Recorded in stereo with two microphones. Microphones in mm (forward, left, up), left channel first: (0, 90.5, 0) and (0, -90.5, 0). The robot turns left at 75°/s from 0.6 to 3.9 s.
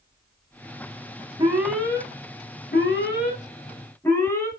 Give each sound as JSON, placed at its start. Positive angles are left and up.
{"t": 1.4, "sound": "an alarm", "azimuth_deg": -155, "distance_m": 3.5}